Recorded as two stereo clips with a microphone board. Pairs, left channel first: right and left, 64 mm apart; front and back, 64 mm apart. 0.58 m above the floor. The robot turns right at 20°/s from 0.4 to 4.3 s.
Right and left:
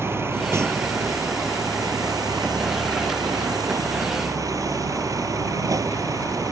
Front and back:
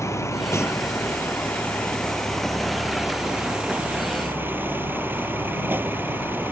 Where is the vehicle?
40° left; by 6.5 s 120° left.